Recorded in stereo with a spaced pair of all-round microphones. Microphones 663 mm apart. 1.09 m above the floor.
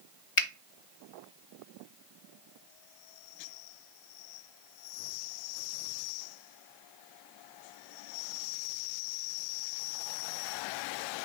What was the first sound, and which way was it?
A finger snap, 50° left (ahead or behind).